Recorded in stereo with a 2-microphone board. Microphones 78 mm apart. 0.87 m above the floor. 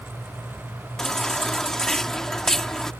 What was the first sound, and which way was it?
A baby crying, 5° left (ahead or behind).